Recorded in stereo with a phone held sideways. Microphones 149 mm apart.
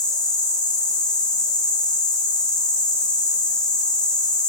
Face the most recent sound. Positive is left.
turn(degrees=25)  # may be behind; listen again after turning